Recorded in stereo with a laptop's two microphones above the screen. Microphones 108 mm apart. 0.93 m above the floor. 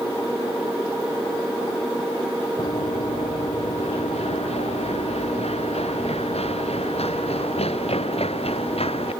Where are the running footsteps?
85° left; by 9.1 s 70° left (ahead or behind).